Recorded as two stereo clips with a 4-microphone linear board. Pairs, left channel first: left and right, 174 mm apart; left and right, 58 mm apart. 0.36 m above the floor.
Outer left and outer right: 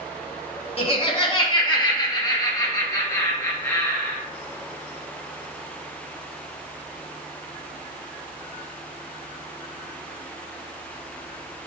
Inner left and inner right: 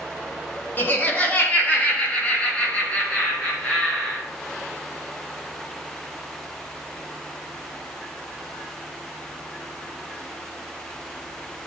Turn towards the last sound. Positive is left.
turn(degrees=15)  # may be behind; listen again after turning